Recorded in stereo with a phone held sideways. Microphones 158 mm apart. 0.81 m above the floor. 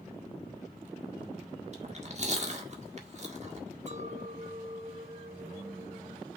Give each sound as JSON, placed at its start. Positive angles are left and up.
{"t": 1.7, "sound": "chewing", "side_deg": -45, "distance_m": 1.5}
{"t": 3.9, "sound": "a clink", "side_deg": -45, "distance_m": 0.7}